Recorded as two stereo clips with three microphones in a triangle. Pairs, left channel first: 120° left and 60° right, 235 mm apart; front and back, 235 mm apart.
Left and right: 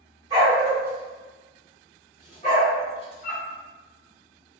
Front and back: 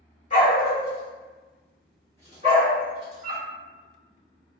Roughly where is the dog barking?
Ahead.